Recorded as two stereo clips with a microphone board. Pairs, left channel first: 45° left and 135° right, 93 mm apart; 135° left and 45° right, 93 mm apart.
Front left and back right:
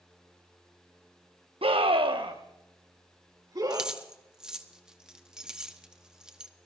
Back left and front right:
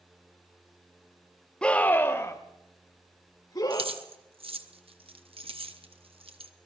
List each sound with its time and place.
1.6 s a scream: 145° right, 1.1 m; by 3.9 s 175° left, 3 m
3.7 s keys jangling: 55° right, 0.9 m